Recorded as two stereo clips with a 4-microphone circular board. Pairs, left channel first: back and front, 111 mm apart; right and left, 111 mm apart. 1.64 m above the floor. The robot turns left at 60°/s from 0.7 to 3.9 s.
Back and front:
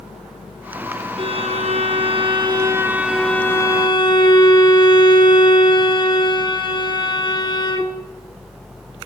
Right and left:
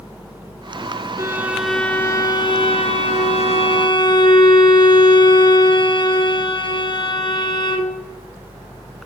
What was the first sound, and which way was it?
A violin, 30° left.